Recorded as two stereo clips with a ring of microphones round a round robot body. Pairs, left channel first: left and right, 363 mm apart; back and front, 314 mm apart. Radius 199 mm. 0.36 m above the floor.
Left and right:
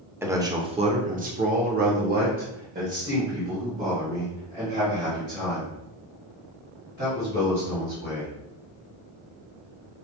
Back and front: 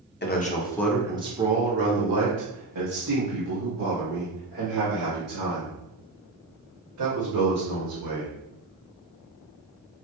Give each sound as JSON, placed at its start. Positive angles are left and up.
{"t": 0.2, "sound": "a man speaking", "azimuth_deg": -170, "distance_m": 0.9}